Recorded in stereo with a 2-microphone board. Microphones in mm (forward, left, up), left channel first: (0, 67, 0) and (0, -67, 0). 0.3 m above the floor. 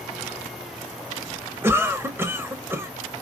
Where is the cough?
15° right (ahead or behind), 0.9 m.